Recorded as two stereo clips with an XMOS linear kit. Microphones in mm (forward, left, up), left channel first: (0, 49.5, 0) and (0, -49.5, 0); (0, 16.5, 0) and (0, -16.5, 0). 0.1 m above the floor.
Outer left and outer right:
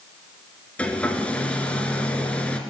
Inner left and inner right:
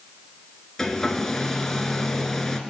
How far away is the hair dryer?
About 1.7 m.